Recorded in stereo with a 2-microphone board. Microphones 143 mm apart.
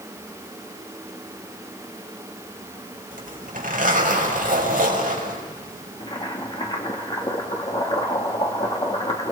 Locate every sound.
3.1 s a zipper: 70° right (ahead or behind), 5.5 m
6.0 s boiling: 35° left (ahead or behind), 2.5 m